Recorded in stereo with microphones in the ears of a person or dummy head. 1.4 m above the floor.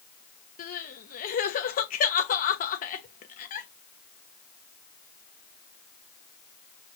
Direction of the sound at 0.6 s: 40° left (ahead or behind).